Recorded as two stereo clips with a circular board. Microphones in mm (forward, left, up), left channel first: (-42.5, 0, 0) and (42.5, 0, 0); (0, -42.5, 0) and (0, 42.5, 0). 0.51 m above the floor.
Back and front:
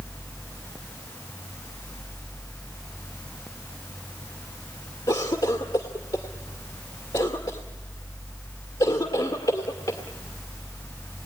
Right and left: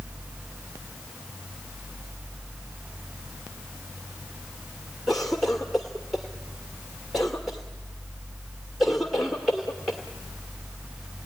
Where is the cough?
Straight behind, 1.7 m.